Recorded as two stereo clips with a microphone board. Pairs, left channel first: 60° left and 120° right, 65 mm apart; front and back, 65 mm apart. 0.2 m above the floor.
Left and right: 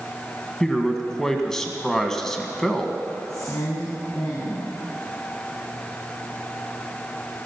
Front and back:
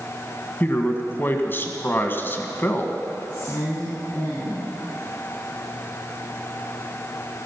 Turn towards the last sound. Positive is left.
turn(degrees=65)